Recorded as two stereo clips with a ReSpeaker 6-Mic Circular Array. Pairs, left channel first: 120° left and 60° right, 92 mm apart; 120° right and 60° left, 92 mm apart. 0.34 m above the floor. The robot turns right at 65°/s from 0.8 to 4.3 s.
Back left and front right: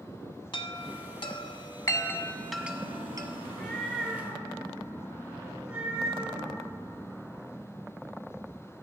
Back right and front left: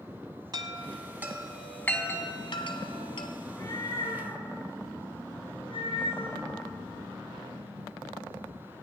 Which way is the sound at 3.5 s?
175° left.